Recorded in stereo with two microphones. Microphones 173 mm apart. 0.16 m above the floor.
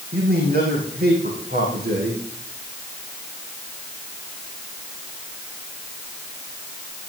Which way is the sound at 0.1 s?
65° right (ahead or behind).